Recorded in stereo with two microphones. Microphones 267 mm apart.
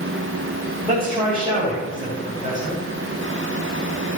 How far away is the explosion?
No explosion in this recording.